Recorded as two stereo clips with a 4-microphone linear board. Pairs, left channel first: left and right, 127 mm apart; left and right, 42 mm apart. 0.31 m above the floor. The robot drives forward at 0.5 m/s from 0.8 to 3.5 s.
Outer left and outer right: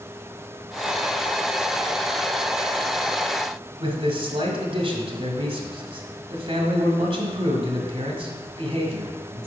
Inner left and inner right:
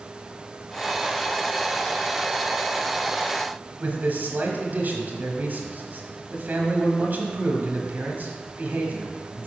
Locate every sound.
3.8 s a man speaking: 45° right (ahead or behind), 1.5 m